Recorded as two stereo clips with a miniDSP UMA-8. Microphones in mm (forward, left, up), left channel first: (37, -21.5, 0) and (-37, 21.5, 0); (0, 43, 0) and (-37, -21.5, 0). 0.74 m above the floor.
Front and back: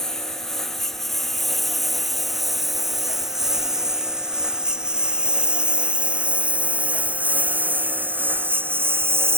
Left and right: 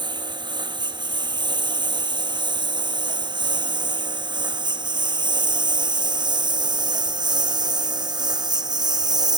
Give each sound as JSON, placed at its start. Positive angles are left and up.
{"t": 0.0, "sound": "a lawn mower", "azimuth_deg": -115}